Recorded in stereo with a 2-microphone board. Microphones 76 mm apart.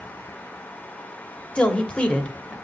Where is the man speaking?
15° left (ahead or behind), 1.4 m.